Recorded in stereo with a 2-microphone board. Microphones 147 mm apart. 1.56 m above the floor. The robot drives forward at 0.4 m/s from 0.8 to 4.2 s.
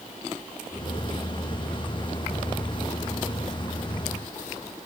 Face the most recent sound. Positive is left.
No sound to turn to.